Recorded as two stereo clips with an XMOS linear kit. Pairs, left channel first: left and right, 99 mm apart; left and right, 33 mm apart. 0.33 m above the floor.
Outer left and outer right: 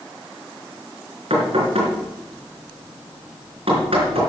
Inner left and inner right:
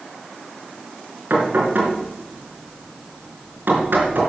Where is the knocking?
70° right (ahead or behind), 4 m.